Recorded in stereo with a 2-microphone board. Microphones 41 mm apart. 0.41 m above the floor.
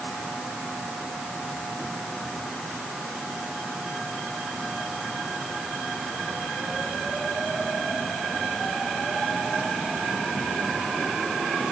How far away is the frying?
I don't hear frying.